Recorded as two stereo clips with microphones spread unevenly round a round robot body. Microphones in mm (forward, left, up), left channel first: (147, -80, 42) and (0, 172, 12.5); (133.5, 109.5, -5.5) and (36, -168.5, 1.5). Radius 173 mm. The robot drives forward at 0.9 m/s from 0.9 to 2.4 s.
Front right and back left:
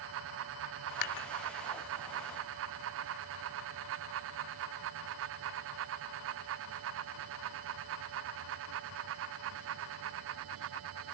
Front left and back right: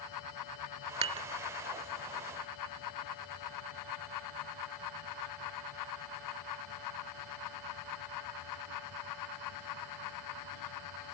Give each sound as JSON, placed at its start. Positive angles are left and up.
{"t": 1.0, "sound": "dishes clattering", "azimuth_deg": -40}